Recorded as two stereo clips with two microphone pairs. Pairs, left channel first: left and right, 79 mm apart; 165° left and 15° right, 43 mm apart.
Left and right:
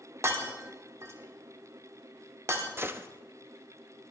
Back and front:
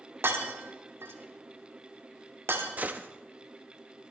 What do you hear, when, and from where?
0.2 s breaking glass: 40° right, 1.4 m
2.8 s a gunshot: 50° right, 0.6 m